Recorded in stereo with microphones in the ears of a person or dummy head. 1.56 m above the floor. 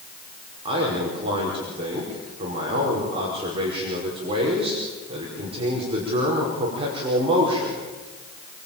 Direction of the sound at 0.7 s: 35° right (ahead or behind).